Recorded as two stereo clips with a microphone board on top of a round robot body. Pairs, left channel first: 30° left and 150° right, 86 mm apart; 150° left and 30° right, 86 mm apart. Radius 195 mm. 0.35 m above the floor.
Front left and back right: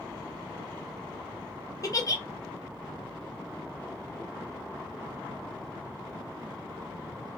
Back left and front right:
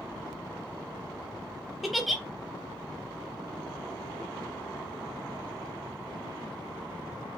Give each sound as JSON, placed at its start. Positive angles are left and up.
{"t": 1.8, "sound": "a giggle", "azimuth_deg": 60, "distance_m": 0.8}